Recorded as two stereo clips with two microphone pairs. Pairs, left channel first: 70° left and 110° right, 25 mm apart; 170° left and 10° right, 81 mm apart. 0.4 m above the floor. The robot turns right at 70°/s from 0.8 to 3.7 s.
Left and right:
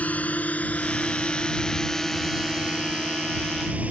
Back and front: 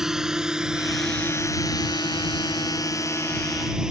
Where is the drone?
75° left; by 3.9 s 90° right.